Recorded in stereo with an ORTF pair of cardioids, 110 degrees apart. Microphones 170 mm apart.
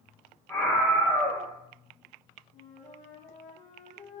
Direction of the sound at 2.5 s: 45° left.